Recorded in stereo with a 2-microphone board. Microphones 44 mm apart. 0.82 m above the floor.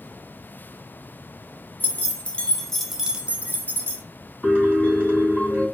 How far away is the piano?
About 2.5 m.